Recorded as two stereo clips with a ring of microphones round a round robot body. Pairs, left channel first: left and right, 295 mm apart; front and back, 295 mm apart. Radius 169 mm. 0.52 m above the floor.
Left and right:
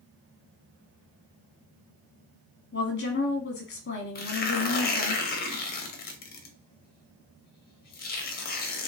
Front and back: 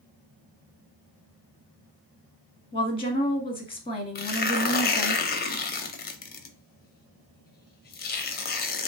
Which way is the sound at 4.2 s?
45° left.